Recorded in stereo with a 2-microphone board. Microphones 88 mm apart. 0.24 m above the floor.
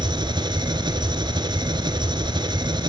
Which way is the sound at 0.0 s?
60° right (ahead or behind).